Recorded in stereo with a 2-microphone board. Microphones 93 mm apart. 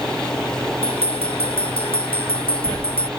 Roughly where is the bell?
Left.